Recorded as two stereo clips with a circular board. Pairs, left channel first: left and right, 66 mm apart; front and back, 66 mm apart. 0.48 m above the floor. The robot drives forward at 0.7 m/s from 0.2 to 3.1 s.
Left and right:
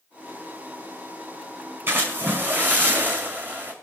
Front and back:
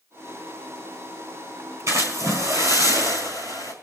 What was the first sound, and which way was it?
A splash, 140° right.